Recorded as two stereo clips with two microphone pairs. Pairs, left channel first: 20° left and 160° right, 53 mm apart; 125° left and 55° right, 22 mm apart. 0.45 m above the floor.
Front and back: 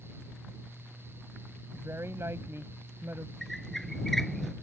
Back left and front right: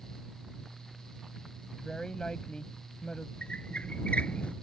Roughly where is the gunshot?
I don't hear a gunshot.